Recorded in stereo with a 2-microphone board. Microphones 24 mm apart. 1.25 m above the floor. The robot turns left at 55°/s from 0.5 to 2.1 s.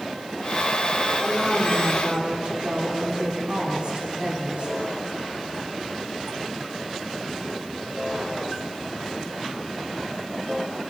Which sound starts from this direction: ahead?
A woman speaking, at 1.2 s.